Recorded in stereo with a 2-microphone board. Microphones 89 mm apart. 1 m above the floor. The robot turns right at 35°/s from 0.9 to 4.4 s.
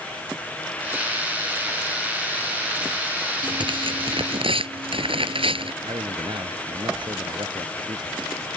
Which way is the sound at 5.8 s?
65° right (ahead or behind).